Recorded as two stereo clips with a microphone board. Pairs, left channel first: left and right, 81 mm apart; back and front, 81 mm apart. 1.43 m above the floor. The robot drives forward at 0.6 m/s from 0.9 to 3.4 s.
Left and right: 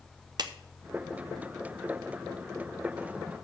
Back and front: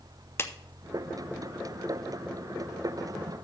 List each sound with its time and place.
0.4 s a clap: 120° right, 0.8 m